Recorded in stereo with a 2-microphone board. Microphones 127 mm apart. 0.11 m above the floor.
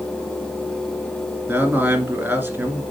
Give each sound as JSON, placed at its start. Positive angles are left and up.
{"t": 1.5, "sound": "a man speaking", "side_deg": -15, "distance_m": 1.3}